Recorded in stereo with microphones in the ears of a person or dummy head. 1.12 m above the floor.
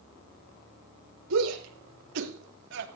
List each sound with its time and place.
1.3 s a shout: 80° right, 5 m; by 2.9 s 65° right (ahead or behind), 3 m